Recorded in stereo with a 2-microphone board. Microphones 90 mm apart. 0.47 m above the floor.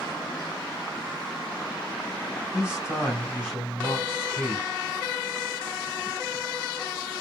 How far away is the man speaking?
About 2.5 m.